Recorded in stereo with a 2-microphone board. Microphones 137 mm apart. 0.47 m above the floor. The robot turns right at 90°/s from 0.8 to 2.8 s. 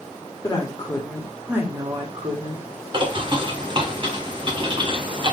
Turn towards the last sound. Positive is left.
turn(degrees=-40)  # may be behind; listen again after turning